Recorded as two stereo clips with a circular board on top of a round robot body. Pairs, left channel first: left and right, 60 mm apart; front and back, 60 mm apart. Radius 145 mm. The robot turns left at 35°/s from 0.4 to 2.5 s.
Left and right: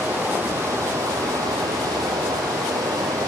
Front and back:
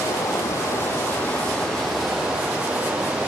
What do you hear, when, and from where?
0.0 s running water: 35° right, 5 m; by 3.3 s 110° right, 5 m